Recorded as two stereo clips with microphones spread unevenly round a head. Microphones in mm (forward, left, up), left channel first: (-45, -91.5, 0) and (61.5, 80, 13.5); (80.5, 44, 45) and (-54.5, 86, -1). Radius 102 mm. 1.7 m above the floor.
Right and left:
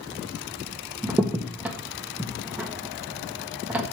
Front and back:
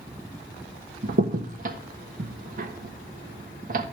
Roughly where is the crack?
Behind left.